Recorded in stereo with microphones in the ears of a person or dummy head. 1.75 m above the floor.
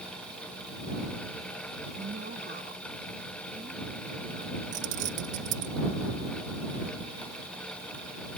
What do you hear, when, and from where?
2.0 s a woman speaking: 40° right (ahead or behind); by 4.6 s 35° right (ahead or behind)
4.7 s keys jangling: 45° right (ahead or behind)